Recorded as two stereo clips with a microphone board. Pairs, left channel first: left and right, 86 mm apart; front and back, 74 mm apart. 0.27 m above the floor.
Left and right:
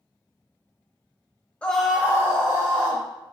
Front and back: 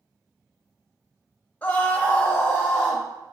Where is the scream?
35° left, 1.0 m; by 3.0 s 70° right, 2.0 m.